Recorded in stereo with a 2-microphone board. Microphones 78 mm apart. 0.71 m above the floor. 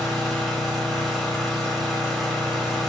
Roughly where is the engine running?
Centre.